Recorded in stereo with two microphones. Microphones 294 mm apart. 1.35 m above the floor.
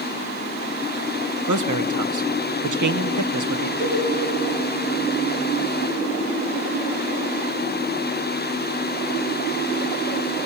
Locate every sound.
1.5 s a man speaking: 80° right, 0.9 m
3.8 s a cowbell: 40° right (ahead or behind), 5 m